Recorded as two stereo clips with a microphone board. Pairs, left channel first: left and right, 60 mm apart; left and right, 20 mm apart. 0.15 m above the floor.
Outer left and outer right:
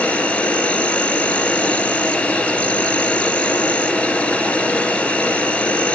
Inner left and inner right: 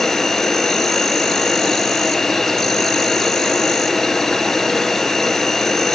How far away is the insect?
About 0.9 m.